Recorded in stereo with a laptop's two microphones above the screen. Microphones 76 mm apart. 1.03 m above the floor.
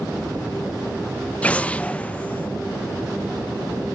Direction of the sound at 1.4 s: 15° left (ahead or behind).